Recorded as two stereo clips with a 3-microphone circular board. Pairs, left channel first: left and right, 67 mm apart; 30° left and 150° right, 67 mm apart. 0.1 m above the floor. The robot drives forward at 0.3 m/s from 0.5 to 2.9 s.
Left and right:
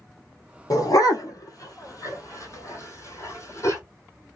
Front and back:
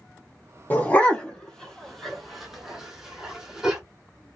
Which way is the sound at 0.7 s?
90° left.